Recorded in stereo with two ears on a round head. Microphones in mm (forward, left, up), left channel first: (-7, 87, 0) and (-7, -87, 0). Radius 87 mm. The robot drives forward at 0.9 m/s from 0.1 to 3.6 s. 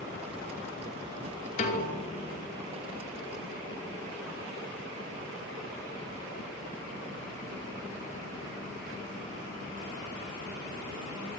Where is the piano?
35° left (ahead or behind), 5 m; by 2.5 s 45° left (ahead or behind), 4.5 m.